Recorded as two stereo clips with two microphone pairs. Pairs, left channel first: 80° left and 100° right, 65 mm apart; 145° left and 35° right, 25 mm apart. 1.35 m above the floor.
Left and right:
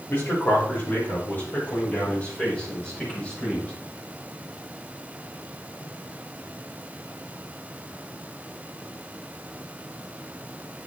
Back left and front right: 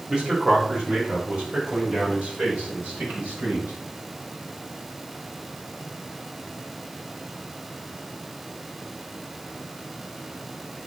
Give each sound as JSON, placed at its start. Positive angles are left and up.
{"t": 0.1, "sound": "a man speaking", "azimuth_deg": 30, "distance_m": 5.0}